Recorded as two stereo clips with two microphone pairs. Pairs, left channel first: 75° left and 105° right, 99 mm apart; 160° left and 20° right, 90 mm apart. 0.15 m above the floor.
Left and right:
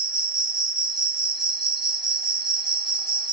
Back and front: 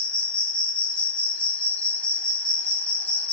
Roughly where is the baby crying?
No baby crying in this recording.